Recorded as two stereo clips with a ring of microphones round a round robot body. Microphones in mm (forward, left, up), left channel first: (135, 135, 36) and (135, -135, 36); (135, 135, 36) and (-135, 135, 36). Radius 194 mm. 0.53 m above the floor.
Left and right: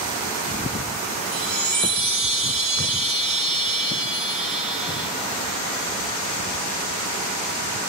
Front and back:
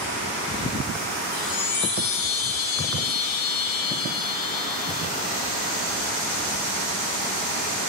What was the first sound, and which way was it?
A chime, 35° right.